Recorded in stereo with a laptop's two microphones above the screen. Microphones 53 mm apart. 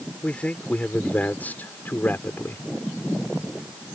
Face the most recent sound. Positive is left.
turn(degrees=45)  # may be behind; listen again after turning